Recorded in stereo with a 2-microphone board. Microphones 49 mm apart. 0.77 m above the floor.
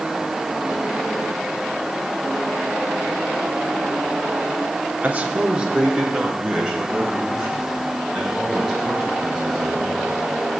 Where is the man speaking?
30° right (ahead or behind), 1.1 m; by 10.2 s centre (ahead or behind), 7.5 m.